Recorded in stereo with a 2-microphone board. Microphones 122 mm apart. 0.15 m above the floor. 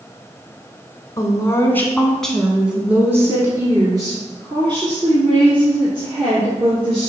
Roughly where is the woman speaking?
Left.